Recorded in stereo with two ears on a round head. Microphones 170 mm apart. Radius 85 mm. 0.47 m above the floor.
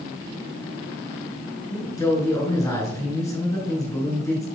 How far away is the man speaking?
About 5.5 m.